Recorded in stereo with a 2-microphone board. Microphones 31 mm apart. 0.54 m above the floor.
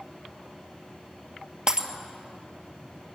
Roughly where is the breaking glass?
Right.